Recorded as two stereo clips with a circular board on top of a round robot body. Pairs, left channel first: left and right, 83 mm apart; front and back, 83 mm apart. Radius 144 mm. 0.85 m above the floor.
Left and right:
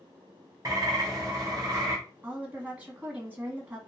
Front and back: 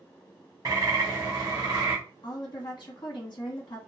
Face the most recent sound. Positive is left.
turn(degrees=-25)